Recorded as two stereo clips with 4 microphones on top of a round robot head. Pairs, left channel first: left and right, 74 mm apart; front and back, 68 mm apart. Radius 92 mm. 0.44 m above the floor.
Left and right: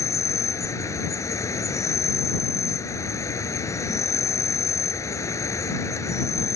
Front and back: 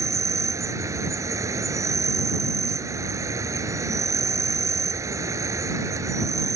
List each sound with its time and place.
0.0 s an insect: 140° left